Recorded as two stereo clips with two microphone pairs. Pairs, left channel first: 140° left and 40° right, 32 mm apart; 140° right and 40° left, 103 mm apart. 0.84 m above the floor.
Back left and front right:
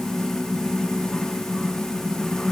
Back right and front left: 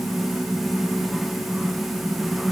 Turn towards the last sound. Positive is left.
No sound to turn to.